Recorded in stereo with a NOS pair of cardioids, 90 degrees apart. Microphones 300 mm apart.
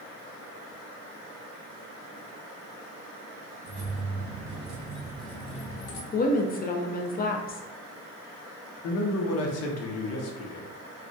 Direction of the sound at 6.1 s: 30° left.